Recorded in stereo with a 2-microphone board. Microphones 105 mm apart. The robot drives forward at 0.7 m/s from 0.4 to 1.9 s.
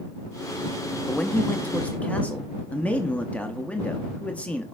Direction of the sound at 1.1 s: 15° left (ahead or behind).